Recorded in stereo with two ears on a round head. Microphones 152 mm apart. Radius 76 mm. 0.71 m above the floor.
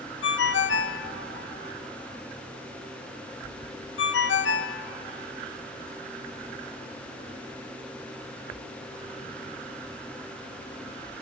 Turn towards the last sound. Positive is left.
turn(degrees=80)